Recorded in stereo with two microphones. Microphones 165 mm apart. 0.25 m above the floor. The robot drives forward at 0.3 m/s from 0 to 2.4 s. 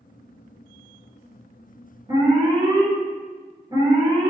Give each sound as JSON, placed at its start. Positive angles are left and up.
{"t": 2.1, "sound": "an alarm", "side_deg": -25, "distance_m": 1.7}